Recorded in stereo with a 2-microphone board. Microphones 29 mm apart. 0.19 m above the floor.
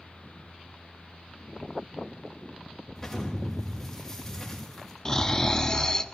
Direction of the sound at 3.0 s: 20° left (ahead or behind).